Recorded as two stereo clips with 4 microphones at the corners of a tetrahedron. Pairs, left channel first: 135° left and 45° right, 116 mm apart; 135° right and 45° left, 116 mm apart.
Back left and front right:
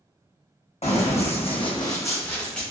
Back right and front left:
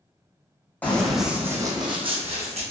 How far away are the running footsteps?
About 0.8 m.